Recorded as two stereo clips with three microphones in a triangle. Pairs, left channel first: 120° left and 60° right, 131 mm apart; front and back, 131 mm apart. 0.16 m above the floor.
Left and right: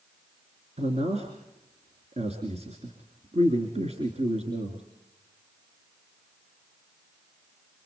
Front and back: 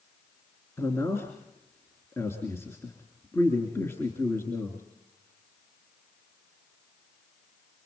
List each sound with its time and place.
0.8 s a man speaking: 65° right, 3 m